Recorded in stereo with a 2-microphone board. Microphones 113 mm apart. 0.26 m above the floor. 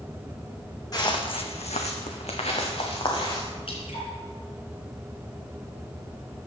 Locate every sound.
0.9 s footsteps: 35° left (ahead or behind), 1.2 m; by 3.5 s 45° left (ahead or behind), 2.5 m
3.7 s dripping: 60° left (ahead or behind), 2.5 m